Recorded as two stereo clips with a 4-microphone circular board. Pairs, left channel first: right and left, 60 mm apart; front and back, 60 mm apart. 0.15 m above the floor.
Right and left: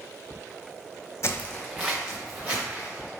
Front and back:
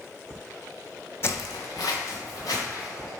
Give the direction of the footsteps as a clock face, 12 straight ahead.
2 o'clock.